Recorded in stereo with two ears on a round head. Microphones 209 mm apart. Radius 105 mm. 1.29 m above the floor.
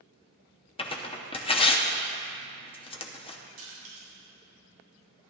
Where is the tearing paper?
25° left (ahead or behind), 0.8 m.